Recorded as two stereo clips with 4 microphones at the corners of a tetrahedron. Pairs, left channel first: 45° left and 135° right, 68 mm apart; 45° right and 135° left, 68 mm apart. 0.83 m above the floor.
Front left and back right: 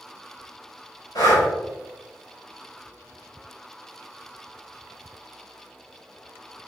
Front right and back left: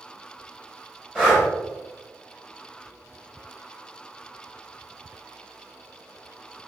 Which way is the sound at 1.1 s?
30° left.